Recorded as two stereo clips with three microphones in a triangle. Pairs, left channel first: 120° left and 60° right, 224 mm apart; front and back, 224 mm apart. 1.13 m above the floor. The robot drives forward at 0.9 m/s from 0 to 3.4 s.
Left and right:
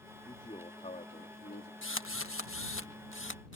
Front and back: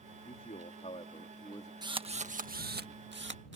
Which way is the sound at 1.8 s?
110° left.